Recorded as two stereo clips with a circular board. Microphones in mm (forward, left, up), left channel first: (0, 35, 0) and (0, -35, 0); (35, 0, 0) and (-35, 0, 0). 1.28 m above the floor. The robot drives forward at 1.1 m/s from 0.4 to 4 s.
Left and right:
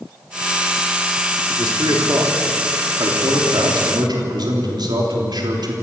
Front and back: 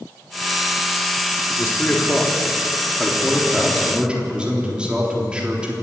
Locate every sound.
1.6 s a man speaking: 60° right, 4 m; by 5.7 s 105° right, 3.5 m